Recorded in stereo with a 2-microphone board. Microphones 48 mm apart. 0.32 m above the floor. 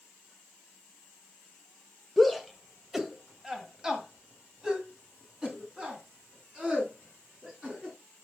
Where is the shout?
Centre (ahead or behind), 1.1 m; by 8.0 s 20° right (ahead or behind), 4 m.